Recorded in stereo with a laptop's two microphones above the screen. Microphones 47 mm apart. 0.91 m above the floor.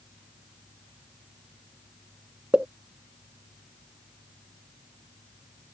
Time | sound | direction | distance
2.5 | a pop | 25° right (ahead or behind) | ?